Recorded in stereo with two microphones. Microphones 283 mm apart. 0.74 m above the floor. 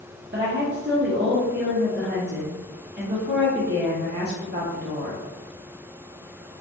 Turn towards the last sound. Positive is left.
turn(degrees=-35)  # may be behind; listen again after turning